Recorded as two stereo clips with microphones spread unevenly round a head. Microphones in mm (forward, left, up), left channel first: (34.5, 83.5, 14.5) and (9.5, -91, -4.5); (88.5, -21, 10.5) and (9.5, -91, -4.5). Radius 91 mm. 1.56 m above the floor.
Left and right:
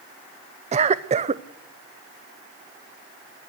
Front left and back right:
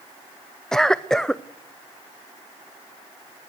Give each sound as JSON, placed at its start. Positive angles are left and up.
{"t": 0.7, "sound": "a cough", "azimuth_deg": -40, "distance_m": 0.7}